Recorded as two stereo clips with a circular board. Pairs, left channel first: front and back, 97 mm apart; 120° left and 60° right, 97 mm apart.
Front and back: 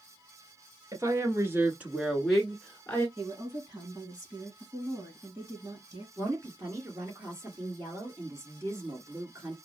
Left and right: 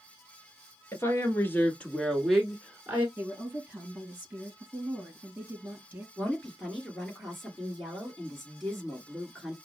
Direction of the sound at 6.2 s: 155° right.